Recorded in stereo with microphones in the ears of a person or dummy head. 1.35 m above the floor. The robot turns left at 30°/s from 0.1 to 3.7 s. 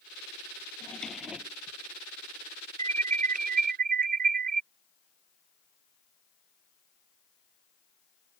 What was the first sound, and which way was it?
A drawer, 10° left (ahead or behind).